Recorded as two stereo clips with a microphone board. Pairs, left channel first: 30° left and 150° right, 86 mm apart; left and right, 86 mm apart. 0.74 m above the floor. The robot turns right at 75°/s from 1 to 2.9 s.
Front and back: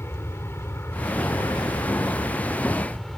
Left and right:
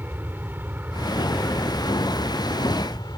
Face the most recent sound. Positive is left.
turn(degrees=115)